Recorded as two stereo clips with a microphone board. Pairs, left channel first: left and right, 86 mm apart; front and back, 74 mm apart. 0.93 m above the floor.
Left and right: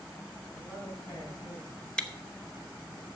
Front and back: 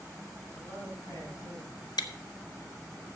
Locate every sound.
0.5 s a man speaking: 40° left, 6.5 m; by 1.7 s 55° left, 6 m
2.0 s chewing: 10° left, 1.1 m